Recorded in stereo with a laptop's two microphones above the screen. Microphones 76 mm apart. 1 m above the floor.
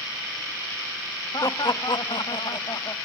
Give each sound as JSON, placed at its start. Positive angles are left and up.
{"t": 1.3, "sound": "laughter", "side_deg": 50, "distance_m": 1.2}